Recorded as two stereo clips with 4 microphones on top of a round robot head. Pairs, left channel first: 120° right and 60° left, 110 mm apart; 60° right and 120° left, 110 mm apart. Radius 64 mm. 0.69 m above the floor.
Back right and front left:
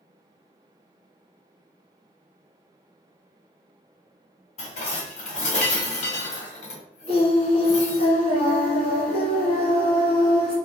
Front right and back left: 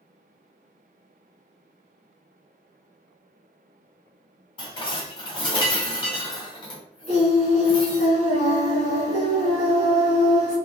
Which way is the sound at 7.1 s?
85° right.